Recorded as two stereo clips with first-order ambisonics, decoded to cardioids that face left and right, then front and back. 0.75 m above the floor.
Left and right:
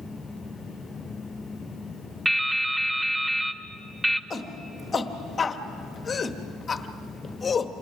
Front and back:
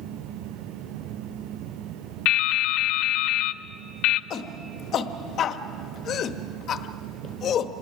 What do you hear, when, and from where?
2.2 s dripping: 5° right, 0.6 m
4.3 s a shout: 30° left, 1.0 m